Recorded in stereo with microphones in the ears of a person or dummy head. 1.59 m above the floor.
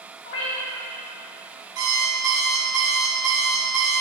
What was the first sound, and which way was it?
A cat meowing, 60° left (ahead or behind).